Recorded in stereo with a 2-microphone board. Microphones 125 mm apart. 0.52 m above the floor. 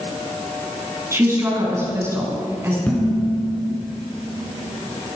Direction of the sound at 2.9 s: 5° left (ahead or behind).